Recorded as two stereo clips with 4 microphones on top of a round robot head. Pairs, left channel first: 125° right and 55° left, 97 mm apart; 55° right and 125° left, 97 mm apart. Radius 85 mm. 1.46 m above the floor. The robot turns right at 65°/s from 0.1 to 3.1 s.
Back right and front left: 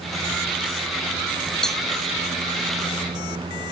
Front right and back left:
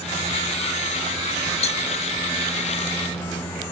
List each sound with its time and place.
1.6 s a cowbell: 40° right; by 1.8 s 25° right